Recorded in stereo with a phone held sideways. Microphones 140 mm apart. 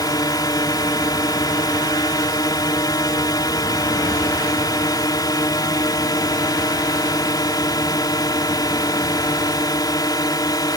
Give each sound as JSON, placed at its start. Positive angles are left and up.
{"t": 0.0, "sound": "a drone", "side_deg": 30}